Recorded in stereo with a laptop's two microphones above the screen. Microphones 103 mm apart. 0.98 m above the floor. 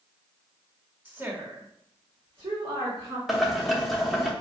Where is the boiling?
Centre (ahead or behind), 0.6 m.